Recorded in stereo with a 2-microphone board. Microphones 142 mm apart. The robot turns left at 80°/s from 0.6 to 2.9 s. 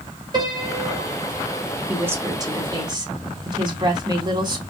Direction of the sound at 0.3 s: 145° right.